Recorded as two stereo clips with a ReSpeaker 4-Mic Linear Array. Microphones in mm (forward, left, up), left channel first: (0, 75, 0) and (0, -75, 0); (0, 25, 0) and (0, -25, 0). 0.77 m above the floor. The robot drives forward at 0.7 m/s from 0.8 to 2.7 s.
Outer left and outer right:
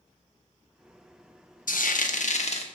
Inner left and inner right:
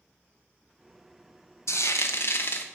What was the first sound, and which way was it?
Frying, 70° left (ahead or behind).